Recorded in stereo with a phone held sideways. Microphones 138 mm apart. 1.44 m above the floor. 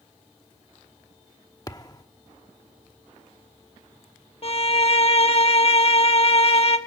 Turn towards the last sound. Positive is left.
turn(degrees=45)  # may be behind; listen again after turning